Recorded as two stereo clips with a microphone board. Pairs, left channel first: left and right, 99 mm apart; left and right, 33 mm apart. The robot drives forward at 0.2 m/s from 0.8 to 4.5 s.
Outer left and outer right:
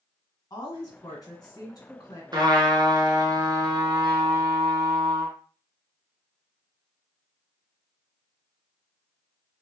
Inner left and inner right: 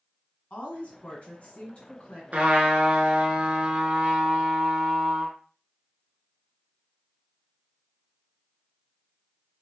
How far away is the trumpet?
About 0.9 m.